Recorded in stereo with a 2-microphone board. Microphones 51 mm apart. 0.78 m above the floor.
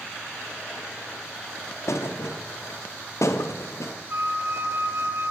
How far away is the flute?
About 0.5 m.